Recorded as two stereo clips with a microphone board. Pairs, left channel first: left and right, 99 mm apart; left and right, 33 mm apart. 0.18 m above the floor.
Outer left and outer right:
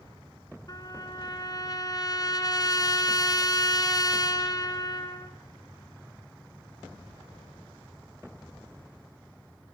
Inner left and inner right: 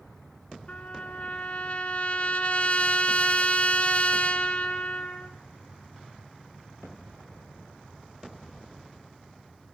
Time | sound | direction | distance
0.7 | a trumpet | 40° left (ahead or behind) | 2 m